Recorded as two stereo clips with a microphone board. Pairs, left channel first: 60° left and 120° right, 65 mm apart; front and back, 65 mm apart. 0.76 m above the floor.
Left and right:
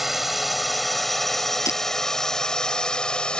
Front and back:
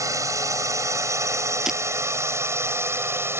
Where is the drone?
155° left; by 3.4 s 135° left.